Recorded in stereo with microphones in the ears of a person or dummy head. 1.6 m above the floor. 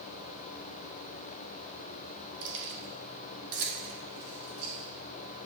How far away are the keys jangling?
About 1.8 m.